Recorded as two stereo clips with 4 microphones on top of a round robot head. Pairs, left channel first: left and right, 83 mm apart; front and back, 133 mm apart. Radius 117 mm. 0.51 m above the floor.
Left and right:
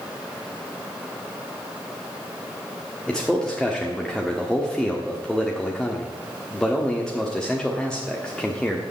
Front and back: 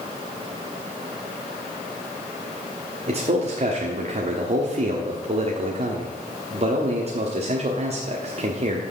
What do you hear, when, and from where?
3.1 s a man speaking: 170° left, 1.4 m